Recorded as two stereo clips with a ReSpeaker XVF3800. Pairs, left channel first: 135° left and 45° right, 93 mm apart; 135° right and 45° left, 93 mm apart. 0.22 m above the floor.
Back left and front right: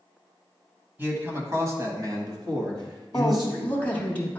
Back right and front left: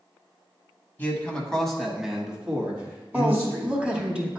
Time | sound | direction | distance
1.0 | a man speaking | 85° right | 1.1 m
3.1 | a woman speaking | 105° left | 1.0 m